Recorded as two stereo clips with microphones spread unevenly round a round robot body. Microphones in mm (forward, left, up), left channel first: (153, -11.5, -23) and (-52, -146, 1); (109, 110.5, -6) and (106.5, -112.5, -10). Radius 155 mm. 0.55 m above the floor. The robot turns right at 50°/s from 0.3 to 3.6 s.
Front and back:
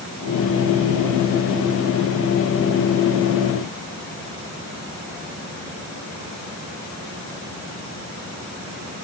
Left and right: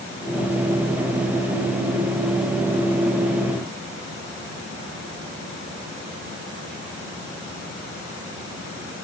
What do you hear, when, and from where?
Only background noise.